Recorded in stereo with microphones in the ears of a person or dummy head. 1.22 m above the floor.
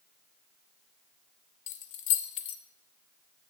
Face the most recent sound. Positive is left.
turn(degrees=45)  # may be behind; listen again after turning